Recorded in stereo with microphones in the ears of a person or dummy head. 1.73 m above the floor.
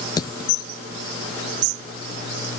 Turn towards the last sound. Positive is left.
turn(degrees=25)  # may be behind; listen again after turning